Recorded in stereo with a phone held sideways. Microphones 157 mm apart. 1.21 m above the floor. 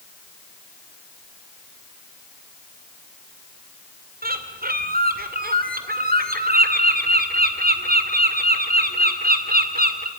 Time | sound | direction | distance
4.2 | a bird | 70° right (ahead or behind) | 2 m